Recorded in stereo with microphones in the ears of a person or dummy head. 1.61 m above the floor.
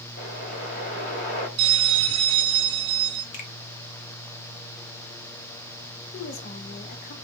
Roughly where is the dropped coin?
No dropped coin in this recording.